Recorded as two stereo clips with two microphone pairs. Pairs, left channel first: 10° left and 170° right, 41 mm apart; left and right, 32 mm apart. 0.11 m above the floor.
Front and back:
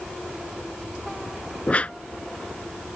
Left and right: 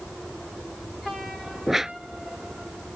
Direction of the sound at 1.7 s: 20° right.